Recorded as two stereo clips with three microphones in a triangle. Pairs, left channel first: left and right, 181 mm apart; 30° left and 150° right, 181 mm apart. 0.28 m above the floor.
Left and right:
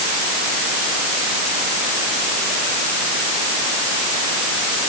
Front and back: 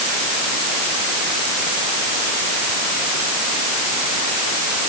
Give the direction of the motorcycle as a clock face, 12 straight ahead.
I don't hear a motorcycle.